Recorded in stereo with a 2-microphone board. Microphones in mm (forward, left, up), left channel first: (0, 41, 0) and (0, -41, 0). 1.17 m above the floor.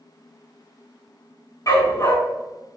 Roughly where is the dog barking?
Left.